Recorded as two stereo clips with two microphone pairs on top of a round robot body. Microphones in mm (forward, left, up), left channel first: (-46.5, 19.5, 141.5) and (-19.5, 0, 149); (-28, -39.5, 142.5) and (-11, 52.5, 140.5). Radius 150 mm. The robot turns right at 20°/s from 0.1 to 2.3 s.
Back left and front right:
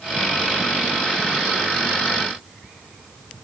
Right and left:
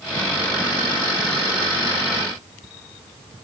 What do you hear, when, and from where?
Only background noise.